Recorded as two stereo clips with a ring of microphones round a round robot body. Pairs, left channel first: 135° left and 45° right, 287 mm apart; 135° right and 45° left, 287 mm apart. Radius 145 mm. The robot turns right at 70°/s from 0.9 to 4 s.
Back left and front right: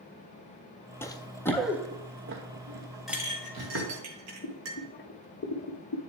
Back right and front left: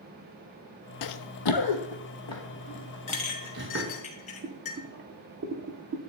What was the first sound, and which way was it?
Running footsteps, 145° right.